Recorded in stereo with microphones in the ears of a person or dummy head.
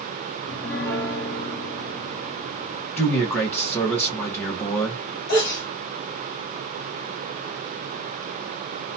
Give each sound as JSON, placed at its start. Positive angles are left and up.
{"t": 0.4, "sound": "a piano", "side_deg": 10, "distance_m": 1.0}
{"t": 3.0, "sound": "a man speaking", "side_deg": 10, "distance_m": 1.5}
{"t": 5.3, "sound": "a sneeze", "side_deg": 60, "distance_m": 1.6}